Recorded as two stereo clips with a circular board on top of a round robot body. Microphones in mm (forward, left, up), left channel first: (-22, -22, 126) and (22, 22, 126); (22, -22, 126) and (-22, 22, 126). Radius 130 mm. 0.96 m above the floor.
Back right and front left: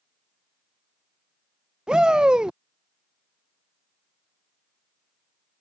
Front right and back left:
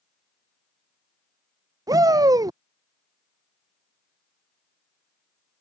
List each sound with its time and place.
1.9 s a shout: 120° left